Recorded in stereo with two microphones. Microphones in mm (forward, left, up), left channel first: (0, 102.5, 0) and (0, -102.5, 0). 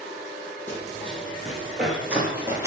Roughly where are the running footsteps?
Centre.